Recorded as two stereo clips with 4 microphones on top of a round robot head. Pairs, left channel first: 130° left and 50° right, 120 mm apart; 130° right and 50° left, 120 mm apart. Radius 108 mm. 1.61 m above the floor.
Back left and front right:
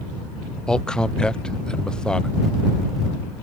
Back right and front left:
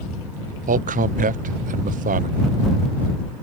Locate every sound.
0.7 s a man speaking: 50° left